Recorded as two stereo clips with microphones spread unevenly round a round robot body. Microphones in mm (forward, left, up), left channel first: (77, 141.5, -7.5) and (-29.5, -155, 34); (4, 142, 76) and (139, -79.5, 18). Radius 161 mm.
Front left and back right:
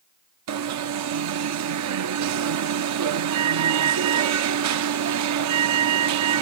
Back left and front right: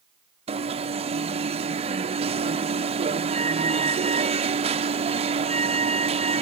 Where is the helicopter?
No helicopter in this recording.